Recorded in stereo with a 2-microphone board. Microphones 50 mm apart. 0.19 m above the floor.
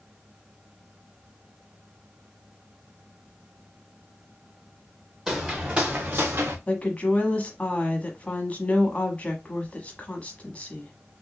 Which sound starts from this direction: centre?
Footsteps, at 5.3 s.